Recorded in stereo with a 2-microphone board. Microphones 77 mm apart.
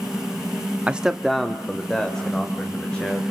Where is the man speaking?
15° right (ahead or behind), 0.6 m; by 3.2 s 10° left (ahead or behind), 3.5 m.